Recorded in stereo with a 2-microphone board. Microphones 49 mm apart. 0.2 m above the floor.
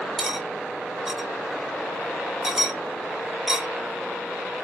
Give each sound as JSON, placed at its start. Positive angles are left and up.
{"t": 0.2, "sound": "cutlery clinking", "side_deg": -10, "distance_m": 0.8}